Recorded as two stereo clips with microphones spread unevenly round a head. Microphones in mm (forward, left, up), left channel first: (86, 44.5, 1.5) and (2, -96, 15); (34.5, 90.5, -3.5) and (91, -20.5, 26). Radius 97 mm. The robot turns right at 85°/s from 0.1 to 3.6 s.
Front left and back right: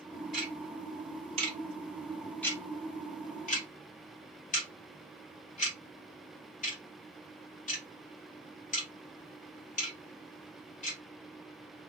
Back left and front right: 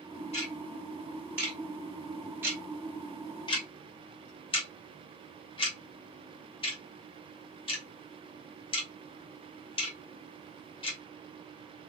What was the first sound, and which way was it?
Ticking, 160° left.